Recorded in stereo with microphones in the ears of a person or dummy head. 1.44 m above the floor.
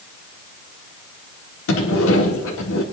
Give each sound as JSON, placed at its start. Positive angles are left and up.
{"t": 1.7, "sound": "a sliding door", "side_deg": 85, "distance_m": 2.0}